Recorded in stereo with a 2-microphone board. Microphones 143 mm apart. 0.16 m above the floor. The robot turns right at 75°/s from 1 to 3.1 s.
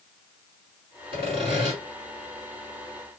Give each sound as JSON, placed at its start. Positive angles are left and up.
{"t": 1.1, "sound": "sawing", "azimuth_deg": -100, "distance_m": 1.9}